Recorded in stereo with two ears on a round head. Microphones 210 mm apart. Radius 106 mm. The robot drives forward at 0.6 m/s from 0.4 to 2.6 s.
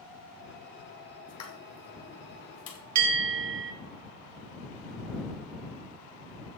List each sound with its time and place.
1.3 s a pop: 75° left (ahead or behind), 2.5 m; by 2.8 s 60° left (ahead or behind), 3 m
3.0 s a bell: 85° right, 2.5 m